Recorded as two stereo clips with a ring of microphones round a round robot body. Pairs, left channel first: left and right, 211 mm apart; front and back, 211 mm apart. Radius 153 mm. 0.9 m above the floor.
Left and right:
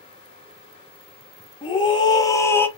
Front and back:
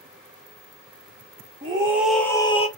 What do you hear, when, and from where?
1.6 s a scream: 135° left, 0.8 m; by 2.7 s 15° left, 0.8 m